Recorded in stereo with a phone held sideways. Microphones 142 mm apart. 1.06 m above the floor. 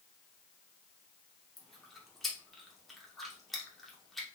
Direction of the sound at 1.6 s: Centre (ahead or behind).